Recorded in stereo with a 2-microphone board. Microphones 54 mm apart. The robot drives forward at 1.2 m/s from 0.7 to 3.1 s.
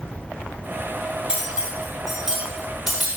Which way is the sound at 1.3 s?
15° right (ahead or behind).